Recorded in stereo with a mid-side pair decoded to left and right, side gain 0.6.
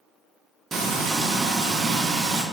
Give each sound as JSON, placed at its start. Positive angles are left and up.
{"t": 0.7, "sound": "frying", "azimuth_deg": -30, "distance_m": 0.6}